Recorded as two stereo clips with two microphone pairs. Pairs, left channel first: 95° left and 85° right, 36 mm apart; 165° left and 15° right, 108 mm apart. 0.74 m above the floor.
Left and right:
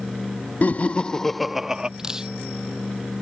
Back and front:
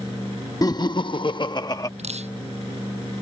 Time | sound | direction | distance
0.6 | laughter | 120° left | ?
2.0 | dripping | 10° right | ?